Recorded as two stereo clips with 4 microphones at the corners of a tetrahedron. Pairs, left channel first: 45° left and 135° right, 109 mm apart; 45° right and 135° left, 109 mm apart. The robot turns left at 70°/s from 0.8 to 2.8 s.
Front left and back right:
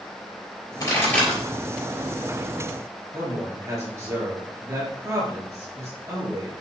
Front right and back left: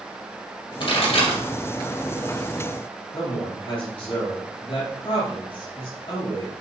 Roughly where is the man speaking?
Right.